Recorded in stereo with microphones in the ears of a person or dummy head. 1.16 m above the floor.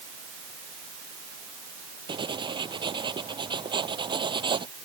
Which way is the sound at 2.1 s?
30° right (ahead or behind).